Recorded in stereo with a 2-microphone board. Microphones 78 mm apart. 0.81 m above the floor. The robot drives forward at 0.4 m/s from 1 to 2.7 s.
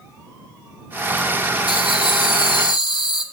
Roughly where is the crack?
I don't hear a crack.